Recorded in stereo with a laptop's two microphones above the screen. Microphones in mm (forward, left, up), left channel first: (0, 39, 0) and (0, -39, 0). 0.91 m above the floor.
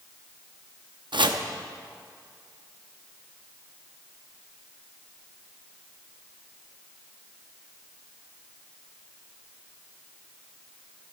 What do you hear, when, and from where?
1.1 s chopping: 80° right, 0.6 m